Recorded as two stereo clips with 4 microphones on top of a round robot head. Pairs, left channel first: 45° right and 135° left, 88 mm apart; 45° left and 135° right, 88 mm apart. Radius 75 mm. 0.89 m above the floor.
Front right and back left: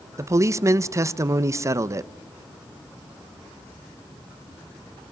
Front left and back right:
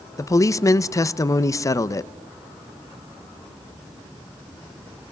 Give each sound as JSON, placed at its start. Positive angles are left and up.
{"t": 0.2, "sound": "a man speaking", "azimuth_deg": 90, "distance_m": 0.7}